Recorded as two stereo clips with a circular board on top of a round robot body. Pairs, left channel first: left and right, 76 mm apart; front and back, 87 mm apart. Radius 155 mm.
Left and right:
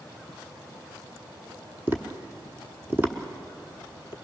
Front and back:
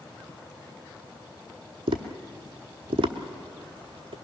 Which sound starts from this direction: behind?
Tapping, at 1.9 s.